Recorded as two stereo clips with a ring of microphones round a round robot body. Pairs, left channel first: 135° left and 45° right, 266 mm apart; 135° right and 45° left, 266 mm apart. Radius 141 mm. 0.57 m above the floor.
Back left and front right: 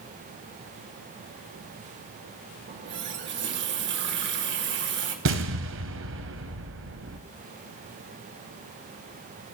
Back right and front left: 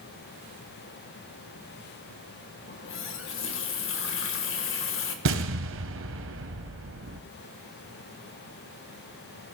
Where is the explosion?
Straight ahead, 1.2 m.